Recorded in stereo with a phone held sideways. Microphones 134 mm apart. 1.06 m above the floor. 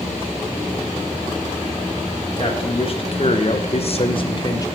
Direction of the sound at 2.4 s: 40° left (ahead or behind).